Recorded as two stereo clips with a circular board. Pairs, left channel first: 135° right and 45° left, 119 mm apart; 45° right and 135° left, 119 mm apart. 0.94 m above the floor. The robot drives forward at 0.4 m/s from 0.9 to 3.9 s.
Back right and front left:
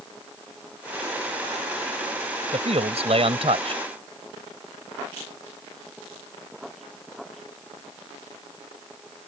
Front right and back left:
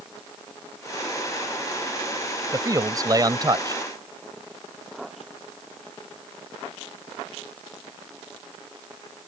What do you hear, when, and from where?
2.5 s a man speaking: 75° left; by 3.8 s 80° left